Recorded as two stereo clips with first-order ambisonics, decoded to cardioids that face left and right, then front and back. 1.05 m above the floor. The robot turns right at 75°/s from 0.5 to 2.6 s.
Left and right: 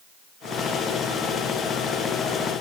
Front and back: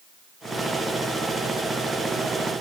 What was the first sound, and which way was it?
Only background noise.